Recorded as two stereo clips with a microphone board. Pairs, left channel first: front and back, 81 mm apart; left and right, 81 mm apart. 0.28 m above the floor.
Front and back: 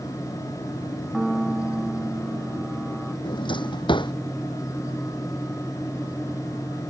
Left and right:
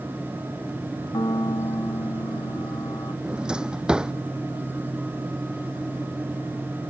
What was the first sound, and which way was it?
A piano, 95° left.